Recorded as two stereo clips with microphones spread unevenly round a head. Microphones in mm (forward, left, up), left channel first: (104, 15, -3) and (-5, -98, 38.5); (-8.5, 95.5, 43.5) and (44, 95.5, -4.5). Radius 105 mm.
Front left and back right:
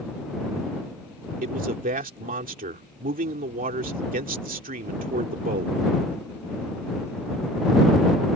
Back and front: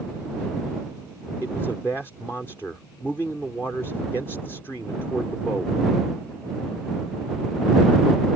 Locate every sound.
1.4 s a man speaking: 105° right